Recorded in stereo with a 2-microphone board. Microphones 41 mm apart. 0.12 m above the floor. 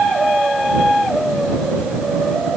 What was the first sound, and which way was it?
Only background noise.